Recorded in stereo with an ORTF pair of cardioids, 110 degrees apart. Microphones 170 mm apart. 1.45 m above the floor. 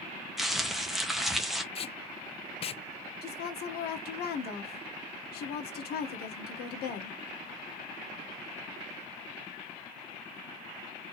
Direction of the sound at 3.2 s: 70° left.